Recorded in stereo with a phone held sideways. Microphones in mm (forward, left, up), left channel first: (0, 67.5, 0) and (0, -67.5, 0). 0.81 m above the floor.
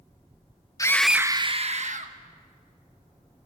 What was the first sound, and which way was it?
A scream, 25° left (ahead or behind).